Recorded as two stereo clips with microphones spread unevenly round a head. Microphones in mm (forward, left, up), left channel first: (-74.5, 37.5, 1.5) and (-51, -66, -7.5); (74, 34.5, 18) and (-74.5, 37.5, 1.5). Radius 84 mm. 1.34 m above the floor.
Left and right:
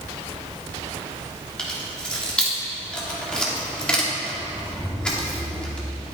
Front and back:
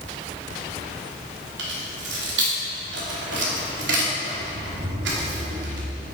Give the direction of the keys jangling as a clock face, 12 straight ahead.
6 o'clock.